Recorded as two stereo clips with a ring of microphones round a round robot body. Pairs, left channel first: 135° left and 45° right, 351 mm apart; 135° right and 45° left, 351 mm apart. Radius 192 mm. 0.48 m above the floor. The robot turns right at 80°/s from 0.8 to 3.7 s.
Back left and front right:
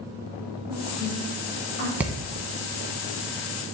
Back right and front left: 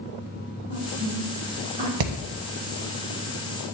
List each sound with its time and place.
0.7 s a woman speaking: 30° left, 3.5 m; by 1.9 s 120° left, 3.5 m
2.0 s hammering: 40° left, 1.0 m; by 2.1 s 50° left, 1.0 m